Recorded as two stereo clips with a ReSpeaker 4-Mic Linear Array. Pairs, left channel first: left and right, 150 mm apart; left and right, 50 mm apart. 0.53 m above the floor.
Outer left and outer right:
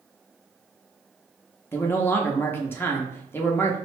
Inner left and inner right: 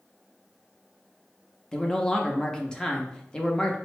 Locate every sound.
1.7 s a man speaking: 15° left (ahead or behind), 0.7 m